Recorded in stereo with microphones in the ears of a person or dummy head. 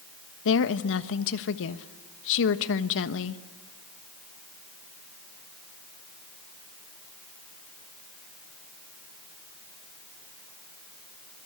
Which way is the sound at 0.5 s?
65° left (ahead or behind).